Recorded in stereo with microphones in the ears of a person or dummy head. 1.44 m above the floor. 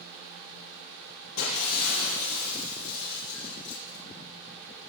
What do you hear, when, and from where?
1.4 s breaking glass: 80° left, 7.5 m